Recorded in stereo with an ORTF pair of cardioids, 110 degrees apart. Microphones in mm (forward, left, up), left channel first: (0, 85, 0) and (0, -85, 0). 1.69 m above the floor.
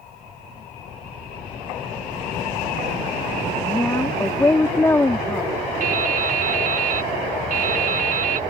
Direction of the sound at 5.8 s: 50° right.